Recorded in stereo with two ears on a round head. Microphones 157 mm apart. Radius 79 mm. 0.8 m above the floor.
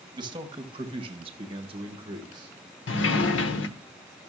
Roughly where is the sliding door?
Left.